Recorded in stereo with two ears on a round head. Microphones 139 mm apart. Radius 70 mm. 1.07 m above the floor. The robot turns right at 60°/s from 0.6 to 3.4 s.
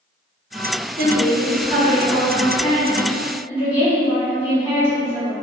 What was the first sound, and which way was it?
A woman speaking, 85° right.